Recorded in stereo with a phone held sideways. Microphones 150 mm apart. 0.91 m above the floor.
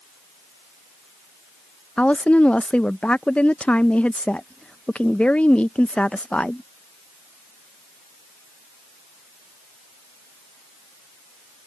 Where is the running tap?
No running tap in this recording.